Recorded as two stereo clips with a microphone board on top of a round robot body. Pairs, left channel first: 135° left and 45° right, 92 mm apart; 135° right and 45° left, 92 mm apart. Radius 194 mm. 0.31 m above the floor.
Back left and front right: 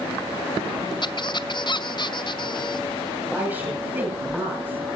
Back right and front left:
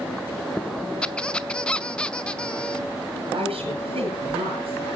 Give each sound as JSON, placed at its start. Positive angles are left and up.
{"t": 1.0, "sound": "a squeak", "azimuth_deg": 150, "distance_m": 1.1}
{"t": 3.3, "sound": "a woman speaking", "azimuth_deg": 30, "distance_m": 8.5}